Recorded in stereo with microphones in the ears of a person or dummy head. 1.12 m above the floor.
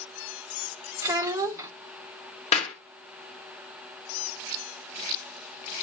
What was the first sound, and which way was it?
A child speaking, 15° right (ahead or behind).